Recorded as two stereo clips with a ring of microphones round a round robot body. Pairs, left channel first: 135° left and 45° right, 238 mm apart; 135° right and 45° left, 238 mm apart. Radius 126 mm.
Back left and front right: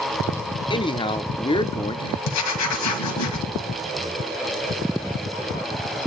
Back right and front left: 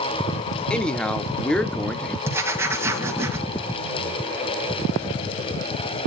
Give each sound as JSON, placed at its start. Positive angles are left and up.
{"t": 0.7, "sound": "a man speaking", "azimuth_deg": 145, "distance_m": 0.8}
{"t": 2.2, "sound": "writing", "azimuth_deg": 125, "distance_m": 1.9}